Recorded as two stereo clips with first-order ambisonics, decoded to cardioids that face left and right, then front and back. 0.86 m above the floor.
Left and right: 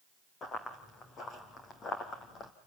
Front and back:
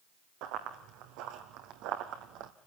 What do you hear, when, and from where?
0.4 s running footsteps: 155° left, 3 m; by 2.5 s 150° left, 2 m